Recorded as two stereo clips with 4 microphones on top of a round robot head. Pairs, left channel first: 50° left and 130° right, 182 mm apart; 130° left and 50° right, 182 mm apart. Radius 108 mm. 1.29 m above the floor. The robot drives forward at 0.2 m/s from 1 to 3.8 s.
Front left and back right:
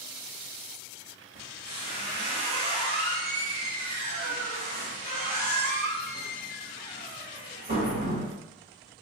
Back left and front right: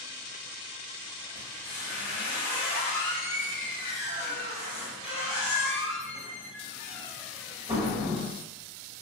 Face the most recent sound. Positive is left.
turn(degrees=-175)